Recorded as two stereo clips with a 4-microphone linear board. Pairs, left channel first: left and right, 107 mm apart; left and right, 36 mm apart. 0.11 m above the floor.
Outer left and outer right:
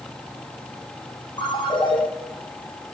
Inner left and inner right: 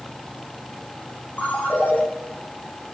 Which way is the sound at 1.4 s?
45° left (ahead or behind).